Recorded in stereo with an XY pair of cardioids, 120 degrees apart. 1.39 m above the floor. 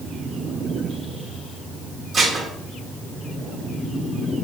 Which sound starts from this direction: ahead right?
Dishes clattering, at 2.1 s.